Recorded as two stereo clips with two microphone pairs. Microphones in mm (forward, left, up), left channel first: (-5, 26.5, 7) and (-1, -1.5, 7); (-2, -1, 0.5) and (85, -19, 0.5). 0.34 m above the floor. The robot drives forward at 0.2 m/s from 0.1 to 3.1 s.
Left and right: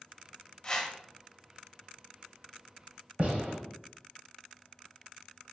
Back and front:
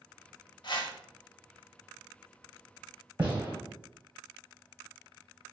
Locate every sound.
0.6 s a whoosh: 160° left, 0.6 m; by 1.0 s 165° left, 0.7 m
3.2 s a gunshot: 75° right, 1.2 m